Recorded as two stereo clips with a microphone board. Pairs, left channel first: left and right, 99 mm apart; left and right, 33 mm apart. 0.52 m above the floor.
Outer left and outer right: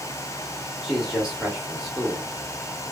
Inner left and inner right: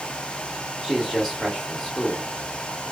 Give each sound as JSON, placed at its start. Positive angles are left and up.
{"t": 0.8, "sound": "a man speaking", "side_deg": 0, "distance_m": 0.9}